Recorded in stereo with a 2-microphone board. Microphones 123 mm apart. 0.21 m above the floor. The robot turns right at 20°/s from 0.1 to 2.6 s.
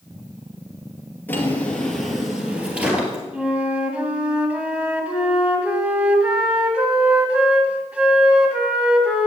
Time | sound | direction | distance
1.3 | a drawer | 15° left (ahead or behind) | 2.5 m
3.3 | a flute | 10° right (ahead or behind) | 1.7 m